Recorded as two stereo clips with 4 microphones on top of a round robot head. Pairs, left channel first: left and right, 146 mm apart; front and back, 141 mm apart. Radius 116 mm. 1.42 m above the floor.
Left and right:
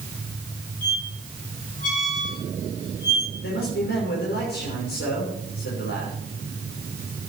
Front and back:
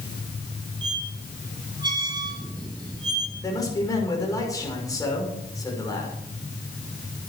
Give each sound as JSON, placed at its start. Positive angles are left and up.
{"t": 0.8, "sound": "a squeak", "azimuth_deg": 120, "distance_m": 2.5}
{"t": 3.4, "sound": "a man speaking", "azimuth_deg": 65, "distance_m": 6.0}